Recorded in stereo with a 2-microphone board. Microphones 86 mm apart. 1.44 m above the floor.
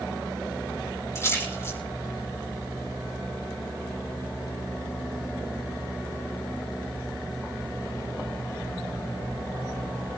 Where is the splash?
30° left (ahead or behind), 5 m.